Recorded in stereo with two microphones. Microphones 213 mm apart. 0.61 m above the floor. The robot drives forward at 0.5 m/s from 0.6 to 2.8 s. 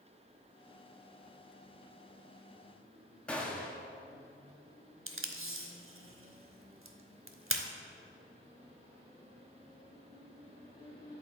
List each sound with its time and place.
3.3 s a gunshot: 5° left (ahead or behind), 0.9 m
5.1 s tape being pulled: 75° right (ahead or behind), 0.7 m